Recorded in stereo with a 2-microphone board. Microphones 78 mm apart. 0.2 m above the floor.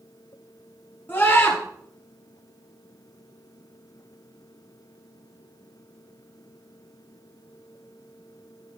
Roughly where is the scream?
Left.